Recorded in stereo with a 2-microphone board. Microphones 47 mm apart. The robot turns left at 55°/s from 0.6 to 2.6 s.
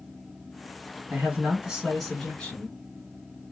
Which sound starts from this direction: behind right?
A man speaking, at 1.1 s.